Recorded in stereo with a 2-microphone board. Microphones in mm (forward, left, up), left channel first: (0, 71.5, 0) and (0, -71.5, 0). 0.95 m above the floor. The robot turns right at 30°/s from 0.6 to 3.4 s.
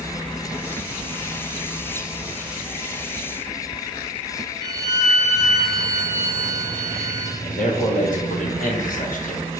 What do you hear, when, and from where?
4.6 s a violin: 45° left (ahead or behind), 1.6 m
7.4 s a man speaking: 75° left (ahead or behind), 1.1 m